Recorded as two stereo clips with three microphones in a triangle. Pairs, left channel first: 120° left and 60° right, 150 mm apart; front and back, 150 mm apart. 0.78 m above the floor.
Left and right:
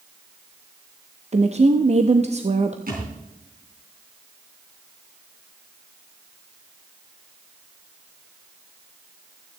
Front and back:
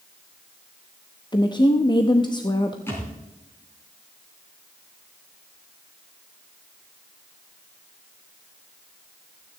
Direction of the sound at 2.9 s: 75° right.